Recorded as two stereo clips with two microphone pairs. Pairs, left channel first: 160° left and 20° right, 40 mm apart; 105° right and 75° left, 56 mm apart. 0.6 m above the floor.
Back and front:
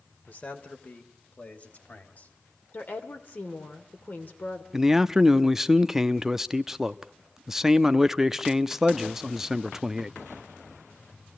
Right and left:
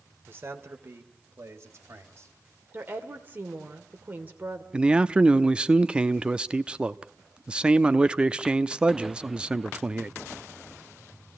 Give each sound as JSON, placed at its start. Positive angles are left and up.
{"t": 0.3, "sound": "a man speaking", "azimuth_deg": 125, "distance_m": 2.5}
{"t": 2.7, "sound": "a woman speaking", "azimuth_deg": 130, "distance_m": 2.5}
{"t": 4.7, "sound": "a man speaking", "azimuth_deg": 45, "distance_m": 0.7}